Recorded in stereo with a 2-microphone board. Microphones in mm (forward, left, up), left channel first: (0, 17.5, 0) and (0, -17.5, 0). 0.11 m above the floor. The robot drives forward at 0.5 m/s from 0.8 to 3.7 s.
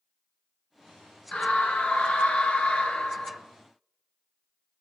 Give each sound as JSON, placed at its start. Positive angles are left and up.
{"t": 1.3, "sound": "a scream", "side_deg": 30, "distance_m": 1.5}